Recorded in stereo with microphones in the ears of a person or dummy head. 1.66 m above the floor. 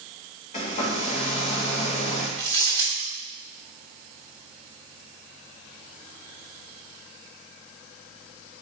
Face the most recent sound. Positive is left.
turn(degrees=20)  # may be behind; listen again after turning